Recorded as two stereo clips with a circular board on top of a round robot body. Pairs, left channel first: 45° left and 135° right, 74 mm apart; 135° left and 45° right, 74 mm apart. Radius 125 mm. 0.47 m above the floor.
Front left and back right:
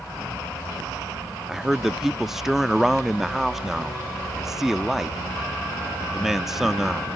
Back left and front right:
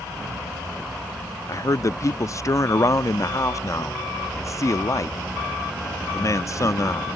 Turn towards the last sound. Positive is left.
turn(degrees=140)